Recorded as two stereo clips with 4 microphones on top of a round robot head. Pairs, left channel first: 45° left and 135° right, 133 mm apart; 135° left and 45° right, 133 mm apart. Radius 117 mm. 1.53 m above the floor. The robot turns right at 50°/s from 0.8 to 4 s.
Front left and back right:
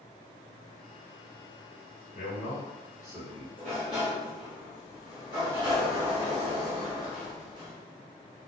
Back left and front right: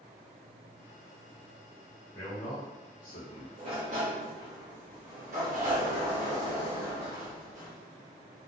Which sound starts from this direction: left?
A man speaking, at 2.1 s.